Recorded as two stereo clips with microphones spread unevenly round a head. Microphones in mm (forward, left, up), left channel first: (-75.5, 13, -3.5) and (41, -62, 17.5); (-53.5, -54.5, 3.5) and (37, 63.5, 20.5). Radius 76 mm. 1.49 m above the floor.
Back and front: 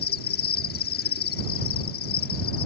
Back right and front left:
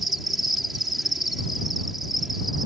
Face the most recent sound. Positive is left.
turn(degrees=140)